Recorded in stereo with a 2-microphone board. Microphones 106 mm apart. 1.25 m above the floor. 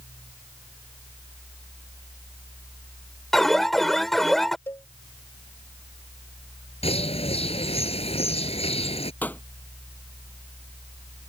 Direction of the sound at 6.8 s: 60° left (ahead or behind).